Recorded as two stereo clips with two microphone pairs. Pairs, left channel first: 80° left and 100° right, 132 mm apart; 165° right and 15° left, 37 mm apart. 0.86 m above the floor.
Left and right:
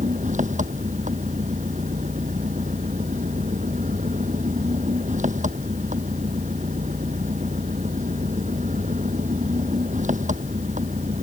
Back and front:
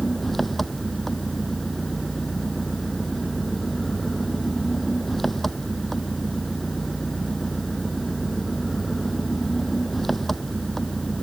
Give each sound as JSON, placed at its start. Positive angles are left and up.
{"t": 0.0, "sound": "an engine running", "azimuth_deg": -80}